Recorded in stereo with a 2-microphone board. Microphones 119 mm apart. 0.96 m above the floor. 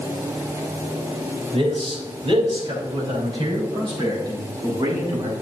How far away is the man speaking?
About 4 m.